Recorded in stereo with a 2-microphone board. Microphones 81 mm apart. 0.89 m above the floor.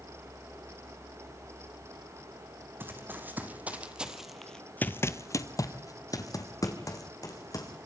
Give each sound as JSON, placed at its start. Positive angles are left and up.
{"t": 2.8, "sound": "running footsteps", "side_deg": -25, "distance_m": 2.5}